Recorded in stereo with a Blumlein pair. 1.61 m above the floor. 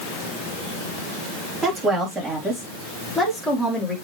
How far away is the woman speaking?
About 3.5 m.